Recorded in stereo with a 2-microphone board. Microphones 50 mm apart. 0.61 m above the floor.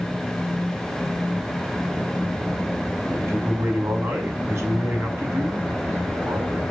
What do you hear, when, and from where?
3.1 s a man speaking: 60° right (ahead or behind), 5.5 m